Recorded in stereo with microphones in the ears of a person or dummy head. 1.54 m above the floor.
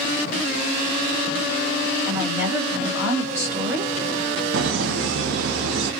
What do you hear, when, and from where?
2.1 s a woman speaking: 10° right (ahead or behind), 2 m
4.5 s laughter: 70° right (ahead or behind), 0.6 m